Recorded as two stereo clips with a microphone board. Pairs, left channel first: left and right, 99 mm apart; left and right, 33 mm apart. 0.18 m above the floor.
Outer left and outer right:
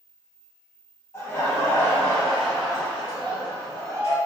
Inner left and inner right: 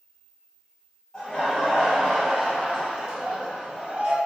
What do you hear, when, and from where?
1.1 s laughter: 30° left (ahead or behind), 1.5 m; by 4.2 s 35° right (ahead or behind), 1.4 m